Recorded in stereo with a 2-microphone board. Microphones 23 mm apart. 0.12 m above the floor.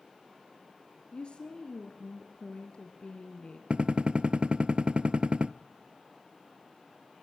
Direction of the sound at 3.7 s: 50° right (ahead or behind).